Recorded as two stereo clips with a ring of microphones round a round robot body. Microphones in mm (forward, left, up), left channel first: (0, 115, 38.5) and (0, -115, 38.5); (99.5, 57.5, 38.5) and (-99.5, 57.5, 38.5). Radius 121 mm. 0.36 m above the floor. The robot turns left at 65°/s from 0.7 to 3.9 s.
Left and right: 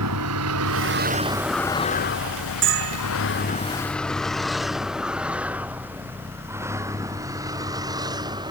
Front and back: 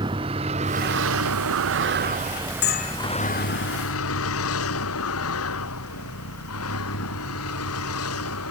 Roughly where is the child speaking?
I don't hear a child speaking.